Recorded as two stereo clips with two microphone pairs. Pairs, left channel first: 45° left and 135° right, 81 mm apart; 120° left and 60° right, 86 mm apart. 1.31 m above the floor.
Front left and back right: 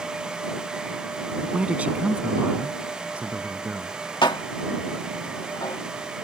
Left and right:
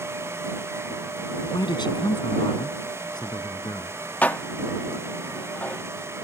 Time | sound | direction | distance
1.4 | a man speaking | 155° left | ?
4.2 | dishes clattering | 55° left | ?